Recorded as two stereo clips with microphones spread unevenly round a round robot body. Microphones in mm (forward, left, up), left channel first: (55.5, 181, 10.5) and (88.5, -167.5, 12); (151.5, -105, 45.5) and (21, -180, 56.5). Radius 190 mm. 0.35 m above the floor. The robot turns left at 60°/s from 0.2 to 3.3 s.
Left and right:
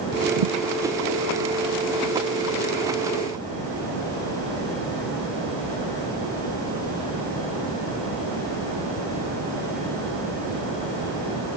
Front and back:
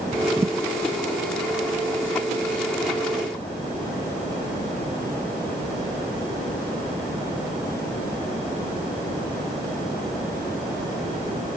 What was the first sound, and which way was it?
A thud, 75° right.